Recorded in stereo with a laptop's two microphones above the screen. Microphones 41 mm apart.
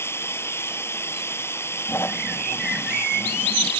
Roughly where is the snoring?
Left.